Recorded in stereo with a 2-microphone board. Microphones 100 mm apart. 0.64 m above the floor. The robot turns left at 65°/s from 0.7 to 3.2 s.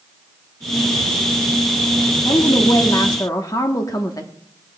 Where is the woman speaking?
125° left, 1.0 m; by 4.3 s 60° left, 1.0 m.